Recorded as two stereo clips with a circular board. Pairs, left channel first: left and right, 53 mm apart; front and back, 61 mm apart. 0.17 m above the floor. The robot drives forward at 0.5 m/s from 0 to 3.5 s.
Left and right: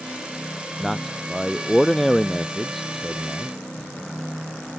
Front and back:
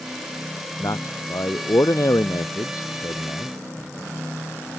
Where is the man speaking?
Straight ahead.